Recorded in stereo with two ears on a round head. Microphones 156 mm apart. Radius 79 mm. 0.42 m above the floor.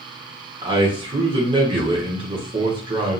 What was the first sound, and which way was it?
A man speaking, 25° right (ahead or behind).